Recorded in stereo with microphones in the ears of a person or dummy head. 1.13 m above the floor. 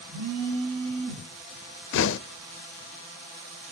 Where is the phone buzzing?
75° right (ahead or behind), 4.5 m.